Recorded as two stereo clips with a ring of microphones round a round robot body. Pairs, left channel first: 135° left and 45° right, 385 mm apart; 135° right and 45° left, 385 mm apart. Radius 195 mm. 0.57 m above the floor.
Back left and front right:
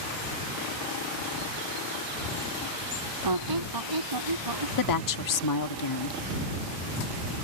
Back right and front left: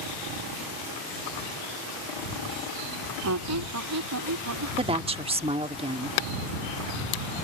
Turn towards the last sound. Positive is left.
turn(degrees=115)